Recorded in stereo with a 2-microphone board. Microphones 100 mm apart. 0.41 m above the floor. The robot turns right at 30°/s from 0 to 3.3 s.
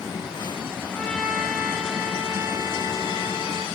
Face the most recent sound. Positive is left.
turn(degrees=-125)